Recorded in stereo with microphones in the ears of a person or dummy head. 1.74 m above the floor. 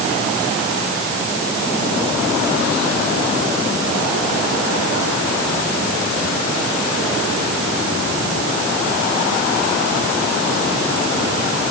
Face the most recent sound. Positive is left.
No sound to turn to.